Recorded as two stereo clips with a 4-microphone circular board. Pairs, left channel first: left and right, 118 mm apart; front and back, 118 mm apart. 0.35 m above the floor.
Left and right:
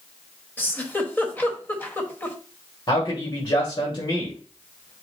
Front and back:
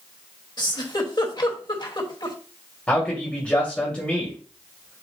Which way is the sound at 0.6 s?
25° left.